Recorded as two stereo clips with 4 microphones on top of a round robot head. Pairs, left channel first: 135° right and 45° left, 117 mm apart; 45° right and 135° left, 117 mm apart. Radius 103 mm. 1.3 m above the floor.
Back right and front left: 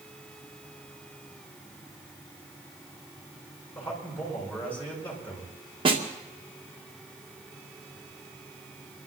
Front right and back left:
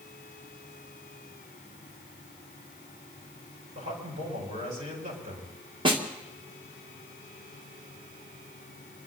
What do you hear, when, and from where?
3.8 s a man speaking: 150° left, 8 m
5.8 s a snare drum: 90° left, 2.5 m